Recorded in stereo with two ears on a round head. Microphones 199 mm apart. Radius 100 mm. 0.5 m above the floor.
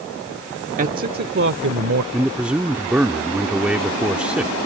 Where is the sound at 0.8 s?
35° right (ahead or behind); by 2.0 s 60° right (ahead or behind).